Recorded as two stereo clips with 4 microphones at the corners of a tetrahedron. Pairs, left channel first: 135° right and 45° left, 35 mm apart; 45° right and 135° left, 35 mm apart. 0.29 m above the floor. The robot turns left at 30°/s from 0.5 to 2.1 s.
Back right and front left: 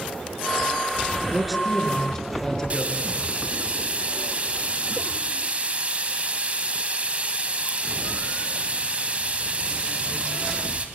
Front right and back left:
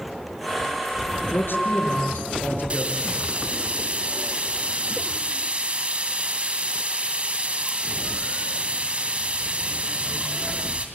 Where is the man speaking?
40° right, 4.5 m; by 3.1 s 60° right, 4.5 m.